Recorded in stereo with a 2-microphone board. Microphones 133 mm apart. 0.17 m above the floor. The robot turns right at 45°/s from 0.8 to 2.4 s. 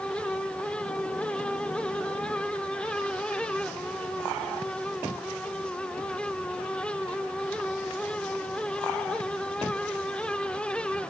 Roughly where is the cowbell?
I don't hear a cowbell.